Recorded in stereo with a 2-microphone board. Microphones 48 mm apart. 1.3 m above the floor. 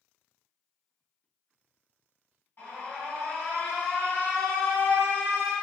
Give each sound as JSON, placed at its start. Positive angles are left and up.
{"t": 2.6, "sound": "an alarm", "side_deg": 50, "distance_m": 1.7}